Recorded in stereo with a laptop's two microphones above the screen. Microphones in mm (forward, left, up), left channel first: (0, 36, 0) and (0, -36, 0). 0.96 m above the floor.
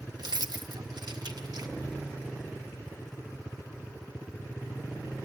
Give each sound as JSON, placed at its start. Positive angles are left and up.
{"t": 0.2, "sound": "keys jangling", "side_deg": -70, "distance_m": 0.7}